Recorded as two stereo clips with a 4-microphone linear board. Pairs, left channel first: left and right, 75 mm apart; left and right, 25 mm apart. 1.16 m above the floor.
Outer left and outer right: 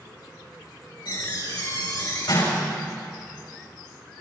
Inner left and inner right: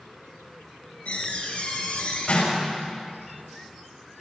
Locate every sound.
1.1 s a door slam: 75° left (ahead or behind), 5.5 m